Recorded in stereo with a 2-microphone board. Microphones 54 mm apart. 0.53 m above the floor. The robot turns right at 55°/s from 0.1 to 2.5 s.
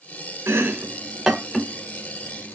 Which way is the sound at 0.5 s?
55° right (ahead or behind).